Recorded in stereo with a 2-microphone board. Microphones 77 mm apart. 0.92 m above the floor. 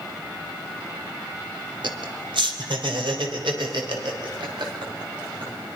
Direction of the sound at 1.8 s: 75° right (ahead or behind).